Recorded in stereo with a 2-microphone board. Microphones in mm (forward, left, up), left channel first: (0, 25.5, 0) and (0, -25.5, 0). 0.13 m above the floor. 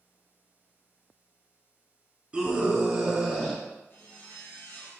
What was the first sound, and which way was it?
A scream, 20° right (ahead or behind).